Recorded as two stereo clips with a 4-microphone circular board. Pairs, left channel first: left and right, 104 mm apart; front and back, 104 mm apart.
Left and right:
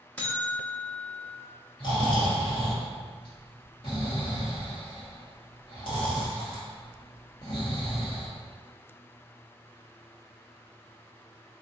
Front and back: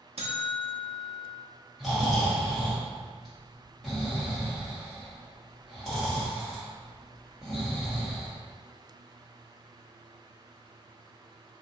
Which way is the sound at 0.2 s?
165° left.